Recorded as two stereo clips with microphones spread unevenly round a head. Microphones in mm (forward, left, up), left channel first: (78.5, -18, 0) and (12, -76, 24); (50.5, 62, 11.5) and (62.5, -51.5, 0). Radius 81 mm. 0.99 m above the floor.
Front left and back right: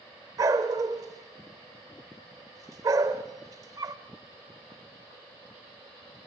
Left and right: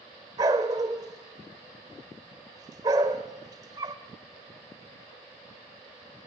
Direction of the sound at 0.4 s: 145° right.